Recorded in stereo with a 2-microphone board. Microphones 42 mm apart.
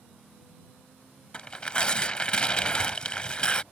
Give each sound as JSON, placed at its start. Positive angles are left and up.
{"t": 1.3, "sound": "tearing paper", "side_deg": 25}